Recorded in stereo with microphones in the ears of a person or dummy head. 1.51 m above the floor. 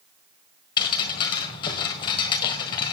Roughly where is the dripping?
Left.